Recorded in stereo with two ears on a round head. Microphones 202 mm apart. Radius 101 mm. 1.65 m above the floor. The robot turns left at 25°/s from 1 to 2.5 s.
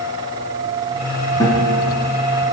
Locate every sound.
1.4 s a guitar: 15° left (ahead or behind), 5 m; by 1.8 s 25° left (ahead or behind), 5 m